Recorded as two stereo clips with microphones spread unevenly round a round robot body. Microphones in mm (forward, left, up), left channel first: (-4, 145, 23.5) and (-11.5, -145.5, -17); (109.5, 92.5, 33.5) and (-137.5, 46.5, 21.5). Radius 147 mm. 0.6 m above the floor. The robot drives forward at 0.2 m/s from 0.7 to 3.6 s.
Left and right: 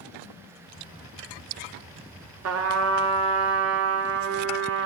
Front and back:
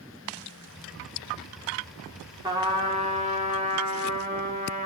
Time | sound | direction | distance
2.4 | a trumpet | 100° right | 1.1 m